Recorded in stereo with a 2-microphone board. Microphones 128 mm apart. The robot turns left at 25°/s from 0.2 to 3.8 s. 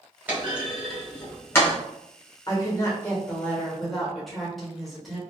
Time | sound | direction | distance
0.3 | a clunk | 15° right (ahead or behind) | 1.2 m
2.5 | a woman speaking | 35° left | 1.2 m